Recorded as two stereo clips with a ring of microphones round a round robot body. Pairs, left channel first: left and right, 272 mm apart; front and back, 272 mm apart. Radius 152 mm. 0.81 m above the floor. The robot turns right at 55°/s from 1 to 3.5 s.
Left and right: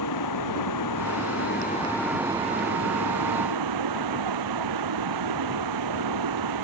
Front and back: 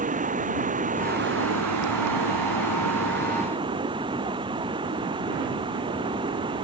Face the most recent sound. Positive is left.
turn(degrees=-105)